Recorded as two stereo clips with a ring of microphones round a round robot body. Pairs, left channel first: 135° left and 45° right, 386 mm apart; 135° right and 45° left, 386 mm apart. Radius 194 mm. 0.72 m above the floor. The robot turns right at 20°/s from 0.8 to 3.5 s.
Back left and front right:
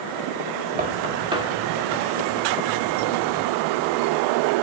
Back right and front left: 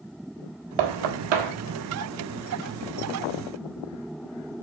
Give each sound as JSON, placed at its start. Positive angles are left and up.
{"t": 0.8, "sound": "knocking", "azimuth_deg": 25, "distance_m": 1.4}